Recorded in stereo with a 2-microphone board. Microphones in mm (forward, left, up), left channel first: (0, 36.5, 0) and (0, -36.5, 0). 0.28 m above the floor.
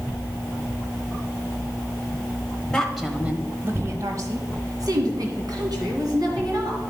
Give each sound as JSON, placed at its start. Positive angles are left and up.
{"t": 2.7, "sound": "a woman speaking", "side_deg": 5, "distance_m": 1.1}